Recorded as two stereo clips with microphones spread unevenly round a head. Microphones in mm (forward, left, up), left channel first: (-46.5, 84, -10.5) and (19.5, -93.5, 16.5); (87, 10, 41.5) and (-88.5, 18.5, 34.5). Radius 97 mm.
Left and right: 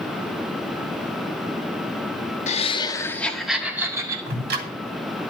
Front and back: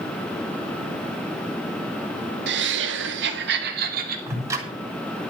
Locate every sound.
2.5 s laughter: 160° left, 1.6 m; by 4.2 s 145° right, 2.5 m
4.3 s ticking: 110° right, 3 m